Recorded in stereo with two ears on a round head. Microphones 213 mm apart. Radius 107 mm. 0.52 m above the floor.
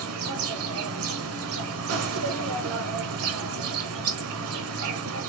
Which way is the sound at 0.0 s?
65° right (ahead or behind).